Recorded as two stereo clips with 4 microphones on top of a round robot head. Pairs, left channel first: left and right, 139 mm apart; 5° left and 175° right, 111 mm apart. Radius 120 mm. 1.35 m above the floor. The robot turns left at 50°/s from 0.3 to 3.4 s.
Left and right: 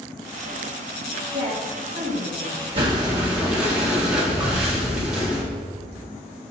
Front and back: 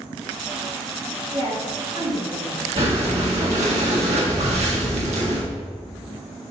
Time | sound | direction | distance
1.3 | a woman speaking | 120° right | 2 m
2.8 | breathing | 140° right | 1.7 m